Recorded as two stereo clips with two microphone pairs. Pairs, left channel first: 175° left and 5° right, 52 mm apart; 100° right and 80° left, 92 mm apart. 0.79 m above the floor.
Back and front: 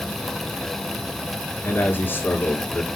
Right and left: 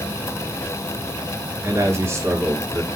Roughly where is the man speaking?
Behind left.